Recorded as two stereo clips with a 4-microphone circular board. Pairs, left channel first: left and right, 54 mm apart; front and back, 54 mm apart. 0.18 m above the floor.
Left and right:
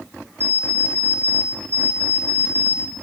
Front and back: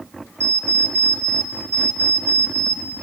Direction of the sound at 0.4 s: 145° left.